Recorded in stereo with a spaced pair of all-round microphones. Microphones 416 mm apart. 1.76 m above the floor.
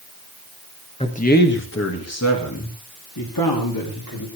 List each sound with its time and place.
1.0 s a man speaking: 15° left (ahead or behind), 1.8 m; by 4.3 s 55° left (ahead or behind), 4 m